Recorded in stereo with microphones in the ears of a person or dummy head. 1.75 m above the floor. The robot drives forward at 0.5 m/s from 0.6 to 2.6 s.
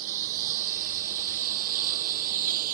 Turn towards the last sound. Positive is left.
turn(degrees=-50)  # may be behind; listen again after turning